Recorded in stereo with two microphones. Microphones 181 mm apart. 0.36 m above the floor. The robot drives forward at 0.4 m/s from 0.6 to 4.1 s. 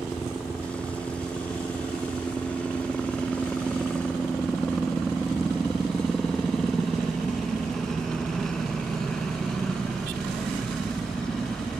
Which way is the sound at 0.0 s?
5° left (ahead or behind).